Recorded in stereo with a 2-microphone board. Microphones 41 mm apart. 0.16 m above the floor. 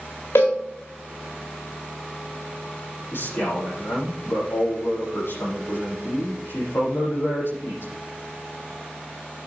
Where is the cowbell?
85° left, 4 m.